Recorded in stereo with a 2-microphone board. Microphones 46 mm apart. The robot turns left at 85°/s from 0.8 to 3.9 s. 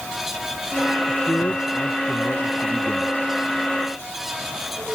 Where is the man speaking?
150° left; by 3.2 s 25° right.